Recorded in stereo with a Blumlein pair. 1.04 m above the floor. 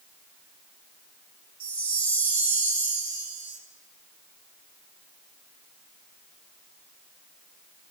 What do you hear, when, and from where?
1.6 s a chime: 65° right, 1.5 m